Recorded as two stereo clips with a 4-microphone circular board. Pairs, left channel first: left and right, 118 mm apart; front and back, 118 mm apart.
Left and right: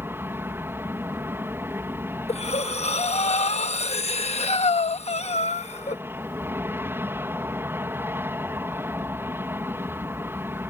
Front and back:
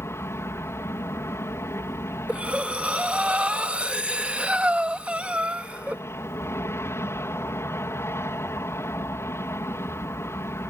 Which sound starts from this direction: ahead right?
An aircraft, at 0.0 s.